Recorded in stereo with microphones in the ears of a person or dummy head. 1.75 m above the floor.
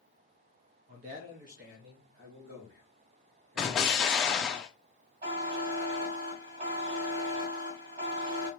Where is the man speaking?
30° right (ahead or behind), 0.7 m; by 4.6 s 75° right (ahead or behind), 2.5 m.